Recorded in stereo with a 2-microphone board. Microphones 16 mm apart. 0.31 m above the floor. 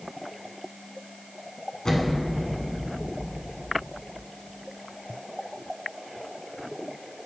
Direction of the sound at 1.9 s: 55° left (ahead or behind).